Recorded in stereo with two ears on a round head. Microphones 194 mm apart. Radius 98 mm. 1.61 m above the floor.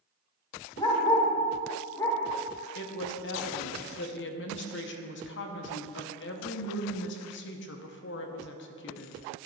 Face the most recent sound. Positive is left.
turn(degrees=55)  # may be behind; listen again after turning